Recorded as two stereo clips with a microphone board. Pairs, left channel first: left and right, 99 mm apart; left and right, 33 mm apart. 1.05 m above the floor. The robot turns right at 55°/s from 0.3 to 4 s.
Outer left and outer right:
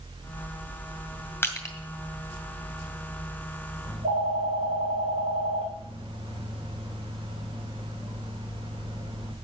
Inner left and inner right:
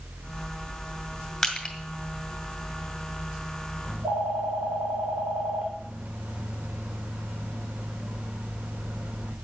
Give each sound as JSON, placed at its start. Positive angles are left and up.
{"t": 1.4, "sound": "crushing", "side_deg": 20, "distance_m": 1.9}
{"t": 3.9, "sound": "a phone ringing", "side_deg": -70, "distance_m": 2.5}